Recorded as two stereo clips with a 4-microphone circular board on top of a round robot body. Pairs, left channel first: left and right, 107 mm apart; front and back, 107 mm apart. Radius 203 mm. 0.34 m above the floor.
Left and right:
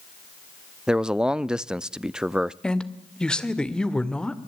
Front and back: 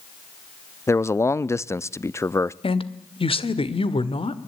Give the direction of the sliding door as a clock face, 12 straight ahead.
I don't hear a sliding door.